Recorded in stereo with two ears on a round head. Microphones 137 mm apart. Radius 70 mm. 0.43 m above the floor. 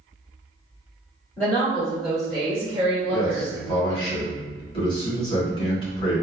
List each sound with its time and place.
1.4 s a woman speaking: 5° left (ahead or behind), 1.8 m; by 4.1 s 30° right (ahead or behind), 1.5 m
3.1 s a man speaking: 30° left (ahead or behind), 1.9 m